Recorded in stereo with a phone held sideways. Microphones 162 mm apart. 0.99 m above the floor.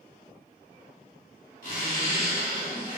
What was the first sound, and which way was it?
A zipper, 60° left (ahead or behind).